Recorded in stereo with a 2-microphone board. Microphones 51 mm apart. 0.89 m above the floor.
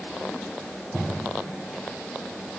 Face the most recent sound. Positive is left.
No sound to turn to.